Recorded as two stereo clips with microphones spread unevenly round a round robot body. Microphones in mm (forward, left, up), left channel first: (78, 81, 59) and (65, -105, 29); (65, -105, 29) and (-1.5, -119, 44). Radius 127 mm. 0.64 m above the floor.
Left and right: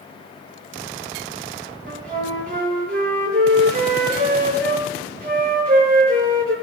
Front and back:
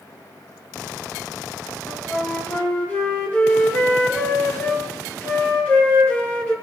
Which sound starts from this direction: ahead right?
A flute, at 1.9 s.